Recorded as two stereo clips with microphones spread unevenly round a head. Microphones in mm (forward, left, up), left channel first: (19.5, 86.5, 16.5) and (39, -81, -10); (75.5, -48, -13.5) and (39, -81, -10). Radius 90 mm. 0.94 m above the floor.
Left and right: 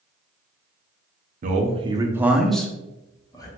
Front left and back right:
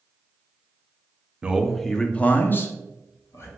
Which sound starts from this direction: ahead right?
A man speaking, at 1.4 s.